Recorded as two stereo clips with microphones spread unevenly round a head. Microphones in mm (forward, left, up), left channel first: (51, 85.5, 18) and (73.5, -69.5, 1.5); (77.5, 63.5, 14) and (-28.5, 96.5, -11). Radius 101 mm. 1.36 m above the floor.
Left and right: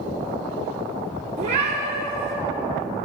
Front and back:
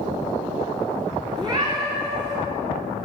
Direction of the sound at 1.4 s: 130° right.